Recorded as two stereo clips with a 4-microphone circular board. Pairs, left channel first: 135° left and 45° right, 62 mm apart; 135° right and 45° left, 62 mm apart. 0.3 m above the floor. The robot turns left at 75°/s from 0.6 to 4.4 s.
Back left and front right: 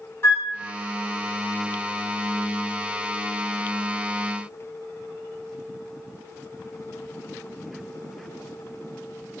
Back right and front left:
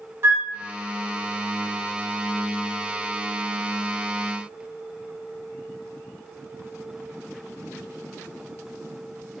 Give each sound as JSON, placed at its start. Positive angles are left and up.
{"t": 0.2, "sound": "a flute", "azimuth_deg": 85, "distance_m": 0.9}